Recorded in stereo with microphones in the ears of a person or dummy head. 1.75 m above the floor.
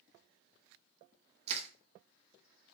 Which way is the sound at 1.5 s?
40° right (ahead or behind).